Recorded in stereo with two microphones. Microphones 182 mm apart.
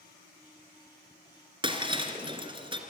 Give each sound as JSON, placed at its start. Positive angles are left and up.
{"t": 1.6, "sound": "breaking glass", "side_deg": -25, "distance_m": 2.5}